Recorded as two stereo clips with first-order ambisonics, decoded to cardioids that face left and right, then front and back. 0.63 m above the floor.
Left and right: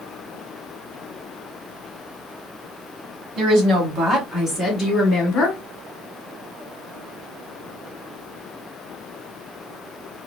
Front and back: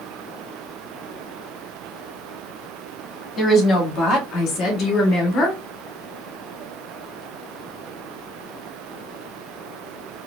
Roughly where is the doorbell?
I don't hear a doorbell.